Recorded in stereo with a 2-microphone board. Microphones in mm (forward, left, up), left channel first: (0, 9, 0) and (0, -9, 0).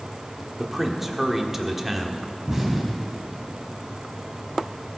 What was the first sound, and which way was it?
A man speaking, 15° right (ahead or behind).